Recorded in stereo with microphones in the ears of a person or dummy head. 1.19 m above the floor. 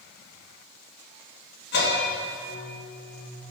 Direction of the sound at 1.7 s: 60° left (ahead or behind).